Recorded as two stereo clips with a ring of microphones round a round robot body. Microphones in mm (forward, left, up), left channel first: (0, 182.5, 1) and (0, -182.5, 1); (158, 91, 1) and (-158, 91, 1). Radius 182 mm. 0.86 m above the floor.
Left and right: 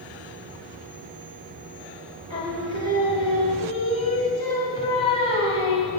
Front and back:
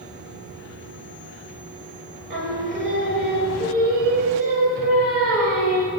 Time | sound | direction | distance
2.3 | singing | 165° left | 2 m